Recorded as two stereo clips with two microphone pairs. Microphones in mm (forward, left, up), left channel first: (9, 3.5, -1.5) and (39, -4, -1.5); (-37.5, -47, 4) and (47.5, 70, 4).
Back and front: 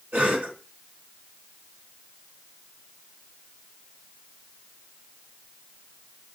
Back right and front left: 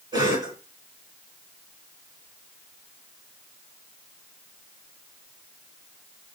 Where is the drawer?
No drawer in this recording.